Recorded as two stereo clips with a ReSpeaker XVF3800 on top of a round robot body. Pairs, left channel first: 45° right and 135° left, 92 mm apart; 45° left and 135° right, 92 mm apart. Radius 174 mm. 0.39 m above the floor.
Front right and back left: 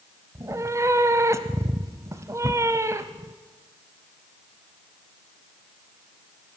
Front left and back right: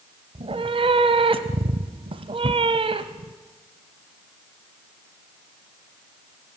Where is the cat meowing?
165° right, 0.8 m.